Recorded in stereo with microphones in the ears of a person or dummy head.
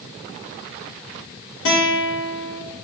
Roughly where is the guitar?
Left.